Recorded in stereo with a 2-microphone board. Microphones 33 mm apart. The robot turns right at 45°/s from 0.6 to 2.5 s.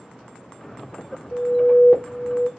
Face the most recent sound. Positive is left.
turn(degrees=140)